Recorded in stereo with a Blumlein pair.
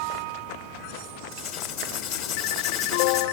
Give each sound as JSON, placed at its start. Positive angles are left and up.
{"t": 1.3, "sound": "writing", "azimuth_deg": 40, "distance_m": 3.0}